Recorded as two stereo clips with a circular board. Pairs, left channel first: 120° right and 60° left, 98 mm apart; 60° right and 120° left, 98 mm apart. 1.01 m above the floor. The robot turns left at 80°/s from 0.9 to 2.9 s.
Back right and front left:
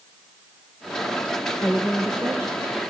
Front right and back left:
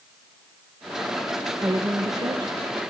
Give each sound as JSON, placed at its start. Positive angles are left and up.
{"t": 1.6, "sound": "a woman speaking", "azimuth_deg": 180, "distance_m": 0.9}